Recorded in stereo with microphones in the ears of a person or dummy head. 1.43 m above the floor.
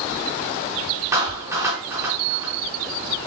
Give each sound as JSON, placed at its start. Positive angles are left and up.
{"t": 1.1, "sound": "a clap", "side_deg": -10, "distance_m": 4.0}